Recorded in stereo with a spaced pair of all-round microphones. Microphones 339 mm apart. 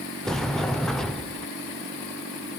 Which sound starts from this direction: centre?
A sliding door, at 0.2 s.